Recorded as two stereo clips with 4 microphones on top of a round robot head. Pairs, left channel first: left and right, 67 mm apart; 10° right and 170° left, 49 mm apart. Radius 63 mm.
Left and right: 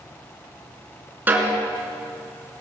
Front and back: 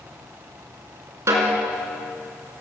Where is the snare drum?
150° right, 3.5 m.